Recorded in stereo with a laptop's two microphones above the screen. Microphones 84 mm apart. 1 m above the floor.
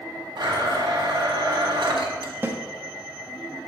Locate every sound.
0.4 s a blender: 75° right (ahead or behind), 1.4 m
2.4 s a snare drum: 30° right (ahead or behind), 0.6 m